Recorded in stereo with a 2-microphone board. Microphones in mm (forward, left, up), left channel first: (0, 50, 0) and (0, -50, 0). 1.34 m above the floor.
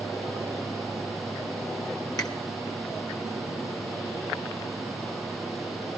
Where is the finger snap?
40° left (ahead or behind), 1.6 m.